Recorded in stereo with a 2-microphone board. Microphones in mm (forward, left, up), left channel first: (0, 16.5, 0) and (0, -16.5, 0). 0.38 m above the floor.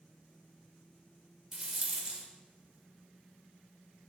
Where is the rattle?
25° right (ahead or behind), 0.5 m.